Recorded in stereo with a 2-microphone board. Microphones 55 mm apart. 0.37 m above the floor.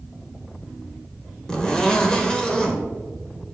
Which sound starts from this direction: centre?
A zipper, at 1.5 s.